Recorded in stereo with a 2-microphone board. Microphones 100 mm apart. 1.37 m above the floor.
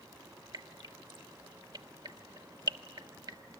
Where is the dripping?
50° right (ahead or behind), 1.3 m.